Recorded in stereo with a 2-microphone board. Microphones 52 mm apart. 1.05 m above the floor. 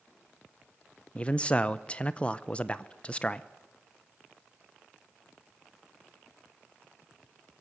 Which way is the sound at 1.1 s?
20° left (ahead or behind).